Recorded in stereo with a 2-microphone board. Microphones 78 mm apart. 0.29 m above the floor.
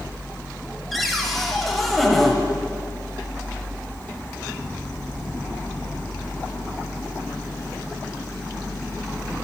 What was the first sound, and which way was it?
A cupboard door, centre (ahead or behind).